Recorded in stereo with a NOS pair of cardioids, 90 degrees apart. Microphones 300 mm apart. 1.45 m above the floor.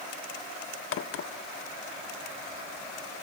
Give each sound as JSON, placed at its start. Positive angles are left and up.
{"t": 0.9, "sound": "a crack", "azimuth_deg": 45, "distance_m": 0.7}